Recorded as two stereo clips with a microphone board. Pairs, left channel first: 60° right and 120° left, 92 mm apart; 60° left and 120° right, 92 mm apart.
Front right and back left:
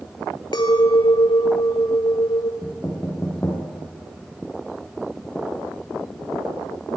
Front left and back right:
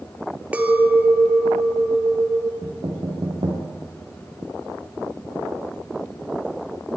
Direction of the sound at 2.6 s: 130° right.